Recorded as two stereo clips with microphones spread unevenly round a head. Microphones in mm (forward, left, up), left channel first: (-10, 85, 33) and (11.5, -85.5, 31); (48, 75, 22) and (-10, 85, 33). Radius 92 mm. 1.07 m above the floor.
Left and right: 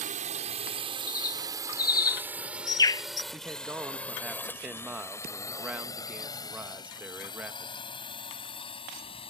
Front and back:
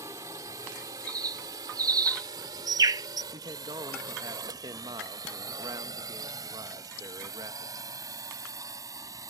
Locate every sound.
0.0 s a drone: 130° right; by 9.3 s 155° left
1.1 s a bird: 165° left
3.3 s a man speaking: 165° right